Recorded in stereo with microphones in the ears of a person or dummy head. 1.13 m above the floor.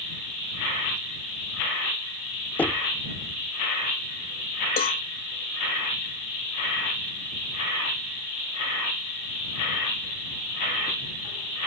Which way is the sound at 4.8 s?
40° left (ahead or behind).